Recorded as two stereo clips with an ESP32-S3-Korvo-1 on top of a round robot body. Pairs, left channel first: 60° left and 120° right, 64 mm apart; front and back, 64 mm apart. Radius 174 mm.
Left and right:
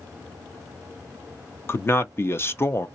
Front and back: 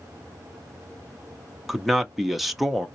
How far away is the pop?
No pop in this recording.